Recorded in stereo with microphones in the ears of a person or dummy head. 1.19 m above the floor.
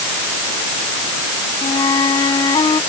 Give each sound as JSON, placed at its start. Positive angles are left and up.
{"t": 1.6, "sound": "a flute", "side_deg": 35}